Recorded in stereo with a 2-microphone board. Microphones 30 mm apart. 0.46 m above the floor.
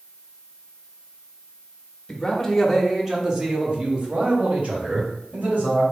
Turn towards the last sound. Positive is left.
turn(degrees=-60)  # may be behind; listen again after turning